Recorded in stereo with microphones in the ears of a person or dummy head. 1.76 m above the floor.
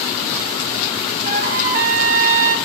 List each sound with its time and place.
1.2 s a trumpet: 45° right (ahead or behind), 0.8 m